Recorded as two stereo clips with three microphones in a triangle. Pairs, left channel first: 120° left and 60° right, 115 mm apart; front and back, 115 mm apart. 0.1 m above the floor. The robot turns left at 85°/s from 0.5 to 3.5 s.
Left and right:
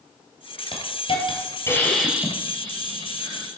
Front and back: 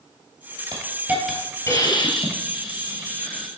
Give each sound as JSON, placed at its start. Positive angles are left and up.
{"t": 0.7, "sound": "a hiss", "azimuth_deg": 140, "distance_m": 1.8}